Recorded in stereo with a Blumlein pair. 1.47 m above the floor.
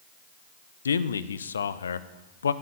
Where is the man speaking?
70° left, 0.7 m.